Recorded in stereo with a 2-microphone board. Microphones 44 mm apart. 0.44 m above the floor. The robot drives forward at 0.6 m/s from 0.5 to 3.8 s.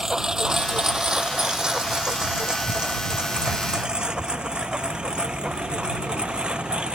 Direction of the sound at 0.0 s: 15° right (ahead or behind).